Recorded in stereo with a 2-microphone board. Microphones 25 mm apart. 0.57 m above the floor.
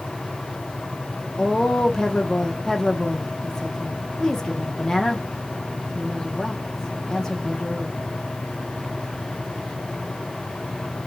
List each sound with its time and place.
1.4 s a woman speaking: 20° left (ahead or behind), 0.8 m